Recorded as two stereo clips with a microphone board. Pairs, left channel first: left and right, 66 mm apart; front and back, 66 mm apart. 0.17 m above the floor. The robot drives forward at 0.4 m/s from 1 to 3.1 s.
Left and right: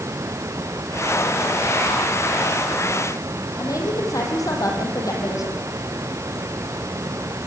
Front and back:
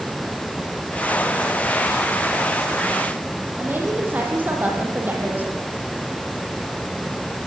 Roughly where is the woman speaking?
Behind left.